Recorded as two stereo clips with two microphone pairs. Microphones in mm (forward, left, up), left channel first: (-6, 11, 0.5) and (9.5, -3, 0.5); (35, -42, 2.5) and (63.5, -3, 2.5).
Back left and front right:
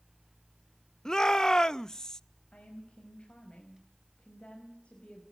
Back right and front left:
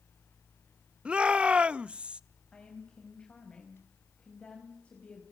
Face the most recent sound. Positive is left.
turn(degrees=170)